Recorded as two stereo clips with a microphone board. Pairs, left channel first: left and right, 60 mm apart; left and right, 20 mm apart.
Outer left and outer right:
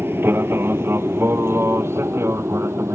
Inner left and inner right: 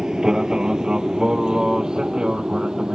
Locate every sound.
0.0 s an aircraft: 35° right (ahead or behind); by 3.0 s 45° right (ahead or behind)